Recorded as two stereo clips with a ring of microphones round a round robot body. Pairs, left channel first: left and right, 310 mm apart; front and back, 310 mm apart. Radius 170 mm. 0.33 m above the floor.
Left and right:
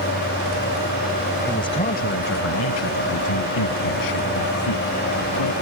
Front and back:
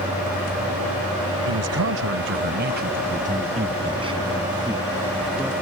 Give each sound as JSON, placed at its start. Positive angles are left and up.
{"t": 1.4, "sound": "a man speaking", "azimuth_deg": 170}